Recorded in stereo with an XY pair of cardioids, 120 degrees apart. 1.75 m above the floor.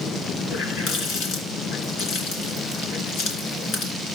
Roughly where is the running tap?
Left.